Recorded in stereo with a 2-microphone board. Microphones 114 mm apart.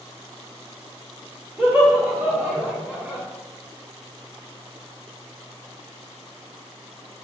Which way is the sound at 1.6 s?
15° right (ahead or behind).